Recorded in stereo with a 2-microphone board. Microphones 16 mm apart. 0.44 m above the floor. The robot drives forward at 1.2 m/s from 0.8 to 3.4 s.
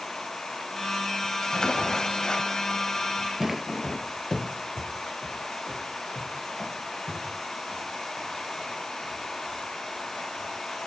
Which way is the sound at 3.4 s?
30° right (ahead or behind).